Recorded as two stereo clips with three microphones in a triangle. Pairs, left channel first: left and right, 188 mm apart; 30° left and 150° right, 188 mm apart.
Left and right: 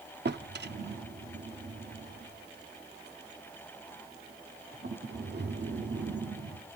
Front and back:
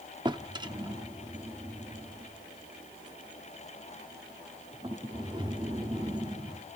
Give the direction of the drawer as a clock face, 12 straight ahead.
3 o'clock.